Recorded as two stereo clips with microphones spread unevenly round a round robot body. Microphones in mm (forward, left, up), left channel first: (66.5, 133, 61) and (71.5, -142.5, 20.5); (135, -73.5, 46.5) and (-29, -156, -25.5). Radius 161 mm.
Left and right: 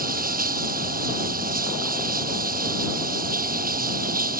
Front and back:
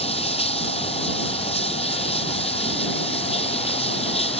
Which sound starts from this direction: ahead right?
Running water, at 0.0 s.